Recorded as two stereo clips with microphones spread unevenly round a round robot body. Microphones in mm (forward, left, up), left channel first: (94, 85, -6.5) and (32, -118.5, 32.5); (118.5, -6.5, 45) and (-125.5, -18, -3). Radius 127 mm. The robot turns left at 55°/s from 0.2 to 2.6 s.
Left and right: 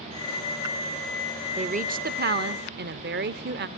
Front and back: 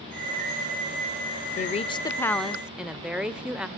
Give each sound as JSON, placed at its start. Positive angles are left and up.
{"t": 1.6, "sound": "a woman speaking", "azimuth_deg": -50, "distance_m": 0.9}